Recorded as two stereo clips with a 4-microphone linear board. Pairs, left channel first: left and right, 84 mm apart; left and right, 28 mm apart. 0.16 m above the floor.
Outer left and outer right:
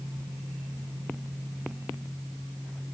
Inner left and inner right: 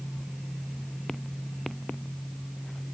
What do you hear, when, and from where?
Only background noise.